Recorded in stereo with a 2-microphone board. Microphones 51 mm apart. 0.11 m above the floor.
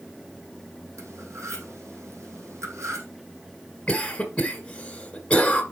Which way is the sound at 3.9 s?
20° left (ahead or behind).